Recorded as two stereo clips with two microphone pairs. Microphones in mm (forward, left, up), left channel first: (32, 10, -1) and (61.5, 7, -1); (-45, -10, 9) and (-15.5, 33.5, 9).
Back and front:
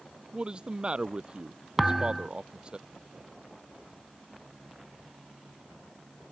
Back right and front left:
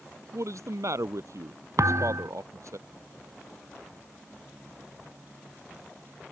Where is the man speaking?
50° left.